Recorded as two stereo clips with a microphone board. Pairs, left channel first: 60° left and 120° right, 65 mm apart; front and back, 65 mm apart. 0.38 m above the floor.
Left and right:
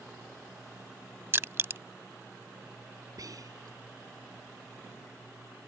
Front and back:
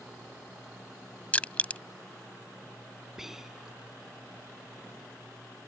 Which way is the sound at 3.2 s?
95° right.